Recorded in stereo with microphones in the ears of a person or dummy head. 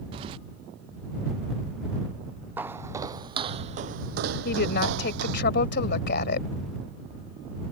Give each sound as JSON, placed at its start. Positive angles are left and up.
{"t": 0.1, "sound": "keys jangling", "side_deg": -25}
{"t": 2.6, "sound": "footsteps", "side_deg": -15}
{"t": 4.5, "sound": "a woman speaking", "side_deg": 75}